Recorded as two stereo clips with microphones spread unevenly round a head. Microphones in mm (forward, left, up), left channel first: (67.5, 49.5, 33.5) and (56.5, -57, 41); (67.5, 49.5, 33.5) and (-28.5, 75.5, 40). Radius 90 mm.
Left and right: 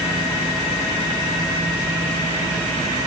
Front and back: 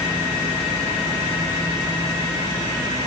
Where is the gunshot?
No gunshot in this recording.